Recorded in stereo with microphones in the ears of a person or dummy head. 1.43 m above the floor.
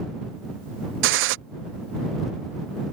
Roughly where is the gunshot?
Right.